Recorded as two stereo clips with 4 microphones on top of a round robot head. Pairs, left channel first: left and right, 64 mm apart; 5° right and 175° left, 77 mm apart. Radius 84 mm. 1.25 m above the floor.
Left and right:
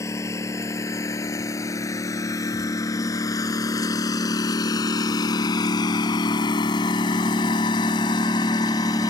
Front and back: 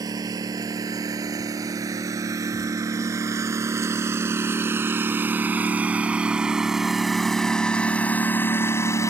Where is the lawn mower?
135° left; by 9.1 s 45° left.